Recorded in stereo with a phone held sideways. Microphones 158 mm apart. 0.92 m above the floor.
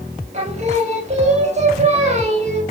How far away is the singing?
About 4.5 m.